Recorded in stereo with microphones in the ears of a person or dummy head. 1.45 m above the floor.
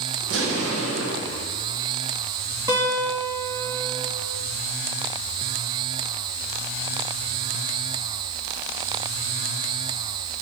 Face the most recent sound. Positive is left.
turn(degrees=-25)  # may be behind; listen again after turning